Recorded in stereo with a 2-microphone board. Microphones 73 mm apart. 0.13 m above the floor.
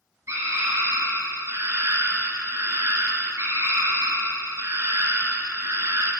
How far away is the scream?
About 2 m.